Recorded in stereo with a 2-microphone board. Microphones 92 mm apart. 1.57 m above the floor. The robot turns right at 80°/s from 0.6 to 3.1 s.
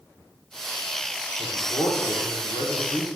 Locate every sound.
1.4 s a man speaking: 15° left, 0.8 m; by 3.1 s 150° left, 0.8 m